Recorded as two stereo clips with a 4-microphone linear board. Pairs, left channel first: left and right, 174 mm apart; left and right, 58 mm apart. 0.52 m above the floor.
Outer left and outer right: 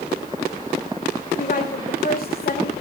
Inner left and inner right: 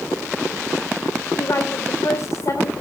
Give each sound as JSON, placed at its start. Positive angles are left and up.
{"t": 1.4, "sound": "a woman speaking", "side_deg": 55, "distance_m": 2.0}